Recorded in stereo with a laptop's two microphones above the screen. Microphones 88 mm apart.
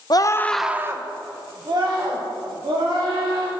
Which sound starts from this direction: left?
A scream, at 0.1 s.